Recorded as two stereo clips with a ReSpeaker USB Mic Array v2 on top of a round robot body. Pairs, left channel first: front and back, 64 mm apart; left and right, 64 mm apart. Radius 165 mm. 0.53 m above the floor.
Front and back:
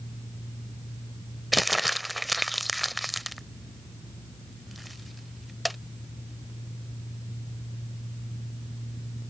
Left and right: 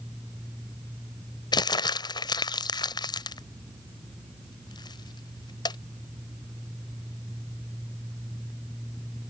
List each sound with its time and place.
1.5 s crumpling: 90° left